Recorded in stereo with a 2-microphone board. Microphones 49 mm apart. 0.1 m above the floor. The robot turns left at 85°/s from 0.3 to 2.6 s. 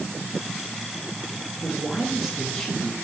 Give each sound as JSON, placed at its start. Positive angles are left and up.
{"t": 1.6, "sound": "a man speaking", "azimuth_deg": -115, "distance_m": 2.0}